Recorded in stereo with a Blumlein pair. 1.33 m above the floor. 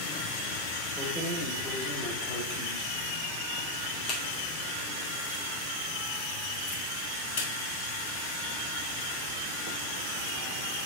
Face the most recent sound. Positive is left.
turn(degrees=50)